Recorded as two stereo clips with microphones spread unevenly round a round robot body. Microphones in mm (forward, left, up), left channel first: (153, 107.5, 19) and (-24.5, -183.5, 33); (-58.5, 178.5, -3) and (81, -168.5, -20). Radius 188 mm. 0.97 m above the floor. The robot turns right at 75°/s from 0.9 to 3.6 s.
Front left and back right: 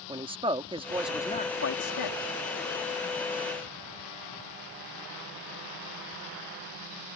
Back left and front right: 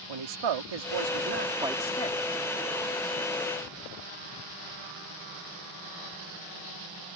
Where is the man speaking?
45° right; by 2.3 s 55° left.